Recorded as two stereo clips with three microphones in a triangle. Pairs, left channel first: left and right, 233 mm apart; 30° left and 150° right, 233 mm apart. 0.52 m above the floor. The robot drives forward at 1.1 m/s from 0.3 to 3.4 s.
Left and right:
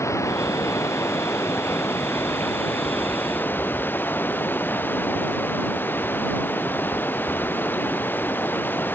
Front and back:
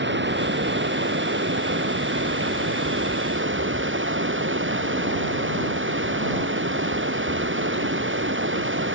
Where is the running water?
170° left.